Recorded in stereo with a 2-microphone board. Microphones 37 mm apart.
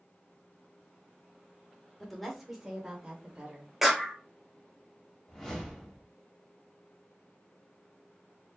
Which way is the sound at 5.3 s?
5° left (ahead or behind).